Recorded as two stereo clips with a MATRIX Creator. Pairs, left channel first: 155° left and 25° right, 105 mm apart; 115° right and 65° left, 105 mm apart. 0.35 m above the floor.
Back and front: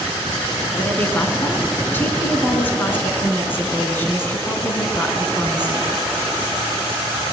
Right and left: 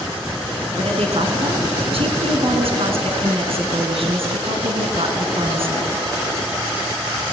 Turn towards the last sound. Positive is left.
turn(degrees=85)